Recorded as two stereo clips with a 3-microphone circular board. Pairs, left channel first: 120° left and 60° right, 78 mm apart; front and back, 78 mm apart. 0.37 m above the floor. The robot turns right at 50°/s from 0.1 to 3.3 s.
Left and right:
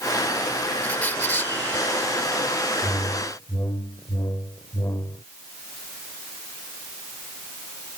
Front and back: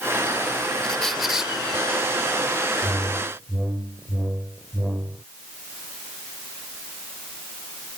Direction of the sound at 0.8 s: 70° left.